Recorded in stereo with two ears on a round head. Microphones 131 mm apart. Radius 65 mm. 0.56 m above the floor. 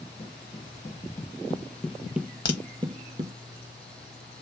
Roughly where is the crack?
Left.